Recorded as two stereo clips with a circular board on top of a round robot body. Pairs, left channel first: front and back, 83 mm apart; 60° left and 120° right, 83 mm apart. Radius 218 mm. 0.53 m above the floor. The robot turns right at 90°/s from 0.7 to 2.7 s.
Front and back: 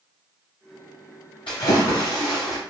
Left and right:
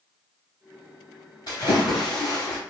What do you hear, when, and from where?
1.5 s a splash: 20° left, 0.5 m; by 2.6 s 120° left, 0.5 m